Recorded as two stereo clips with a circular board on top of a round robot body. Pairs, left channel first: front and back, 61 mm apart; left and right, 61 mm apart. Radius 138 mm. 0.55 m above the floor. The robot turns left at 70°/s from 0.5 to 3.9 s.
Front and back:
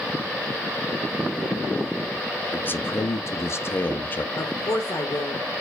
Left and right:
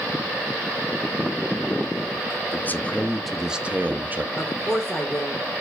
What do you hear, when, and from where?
2.5 s a man speaking: 50° left, 0.9 m; by 4.2 s 45° right, 0.9 m
4.3 s a woman speaking: 15° left, 2 m